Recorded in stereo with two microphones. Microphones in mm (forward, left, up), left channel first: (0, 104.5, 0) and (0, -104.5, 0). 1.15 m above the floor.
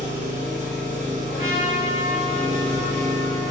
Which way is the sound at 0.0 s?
35° right (ahead or behind).